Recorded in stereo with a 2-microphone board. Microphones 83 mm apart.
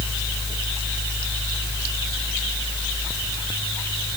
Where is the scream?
No scream in this recording.